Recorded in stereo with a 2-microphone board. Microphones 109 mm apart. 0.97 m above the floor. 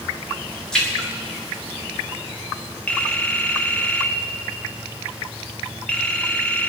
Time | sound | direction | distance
0.7 | a splash | 5° left (ahead or behind) | 3 m
2.9 | a phone ringing | 10° left (ahead or behind) | 1.6 m